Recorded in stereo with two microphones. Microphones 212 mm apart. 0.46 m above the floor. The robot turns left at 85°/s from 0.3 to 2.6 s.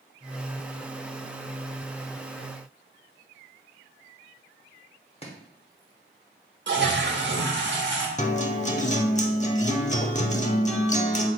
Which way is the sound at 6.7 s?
60° right (ahead or behind).